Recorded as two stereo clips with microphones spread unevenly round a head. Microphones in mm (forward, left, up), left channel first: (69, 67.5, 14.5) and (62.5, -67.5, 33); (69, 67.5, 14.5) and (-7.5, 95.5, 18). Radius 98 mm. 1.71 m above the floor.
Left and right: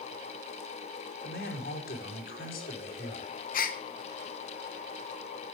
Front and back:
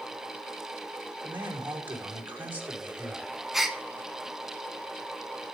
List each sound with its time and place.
1.2 s a man speaking: 95° left, 4.5 m
3.5 s a gasp: 75° left, 1.2 m